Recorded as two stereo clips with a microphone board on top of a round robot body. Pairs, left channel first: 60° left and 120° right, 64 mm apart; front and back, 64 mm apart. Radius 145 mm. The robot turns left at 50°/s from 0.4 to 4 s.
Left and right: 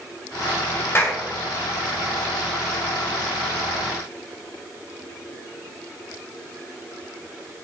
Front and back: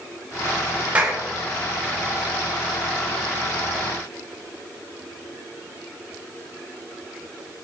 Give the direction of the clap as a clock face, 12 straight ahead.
8 o'clock.